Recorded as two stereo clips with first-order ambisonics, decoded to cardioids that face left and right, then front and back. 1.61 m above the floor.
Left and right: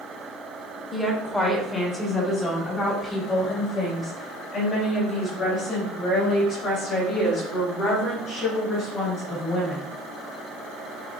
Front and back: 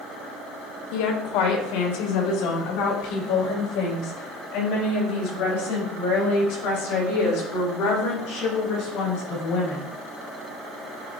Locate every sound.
0.9 s a woman speaking: 10° left, 1.7 m; by 9.9 s 35° left, 8 m